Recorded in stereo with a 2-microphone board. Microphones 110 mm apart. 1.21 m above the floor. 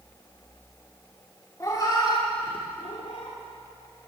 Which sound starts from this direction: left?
A cat meowing, at 1.6 s.